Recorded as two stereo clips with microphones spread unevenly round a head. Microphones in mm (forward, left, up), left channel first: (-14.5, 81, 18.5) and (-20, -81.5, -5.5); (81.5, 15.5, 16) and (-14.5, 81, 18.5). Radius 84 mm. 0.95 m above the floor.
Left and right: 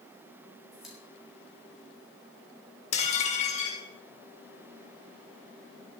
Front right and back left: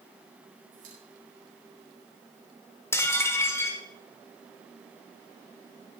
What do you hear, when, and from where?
0.7 s a pop: straight behind, 5.5 m
2.9 s dishes clattering: 35° left, 1.8 m